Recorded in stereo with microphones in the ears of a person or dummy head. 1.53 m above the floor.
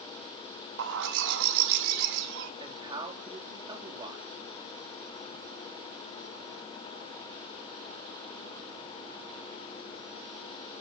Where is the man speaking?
25° right (ahead or behind), 3.5 m.